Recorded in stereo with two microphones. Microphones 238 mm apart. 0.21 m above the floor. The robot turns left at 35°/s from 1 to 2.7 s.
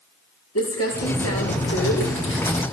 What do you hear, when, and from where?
0.6 s crumpling: 100° left, 7 m; by 2.6 s 40° left, 7 m